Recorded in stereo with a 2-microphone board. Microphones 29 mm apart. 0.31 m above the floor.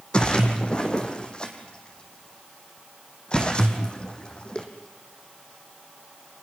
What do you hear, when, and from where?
0.1 s a splash: 30° left (ahead or behind), 2.5 m